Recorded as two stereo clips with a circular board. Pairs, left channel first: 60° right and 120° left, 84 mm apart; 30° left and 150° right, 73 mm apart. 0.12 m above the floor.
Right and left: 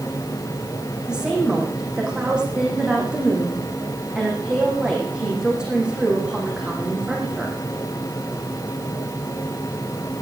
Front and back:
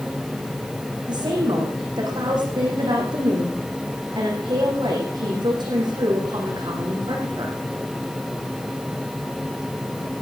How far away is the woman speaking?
About 7 m.